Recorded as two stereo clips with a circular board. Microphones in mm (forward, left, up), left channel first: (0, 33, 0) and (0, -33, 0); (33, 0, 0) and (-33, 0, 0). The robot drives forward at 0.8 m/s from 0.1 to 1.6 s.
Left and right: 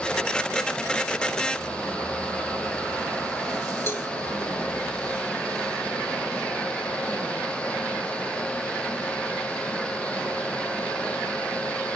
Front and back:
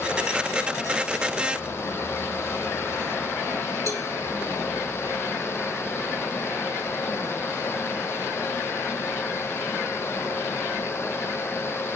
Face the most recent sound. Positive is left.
turn(degrees=145)